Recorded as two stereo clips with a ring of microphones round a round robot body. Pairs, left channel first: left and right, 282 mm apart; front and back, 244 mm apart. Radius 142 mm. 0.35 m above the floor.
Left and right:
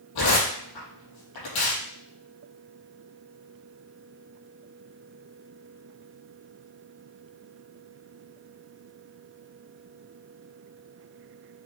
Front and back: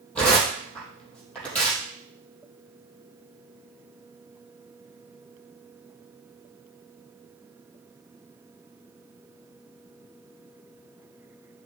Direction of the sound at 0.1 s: 85° left.